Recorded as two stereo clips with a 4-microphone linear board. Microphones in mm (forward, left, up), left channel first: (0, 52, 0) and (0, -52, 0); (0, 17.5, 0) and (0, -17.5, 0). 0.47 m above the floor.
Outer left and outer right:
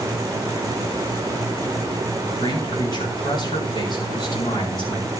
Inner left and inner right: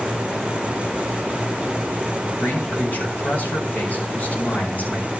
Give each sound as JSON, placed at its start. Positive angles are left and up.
{"t": 2.4, "sound": "a man speaking", "side_deg": 50, "distance_m": 4.5}